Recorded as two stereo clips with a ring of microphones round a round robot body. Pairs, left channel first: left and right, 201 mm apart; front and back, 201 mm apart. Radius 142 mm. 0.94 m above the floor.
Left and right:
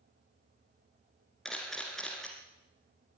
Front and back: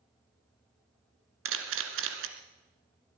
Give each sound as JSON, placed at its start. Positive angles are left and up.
{"t": 1.4, "sound": "a camera shutter", "azimuth_deg": 180, "distance_m": 2.0}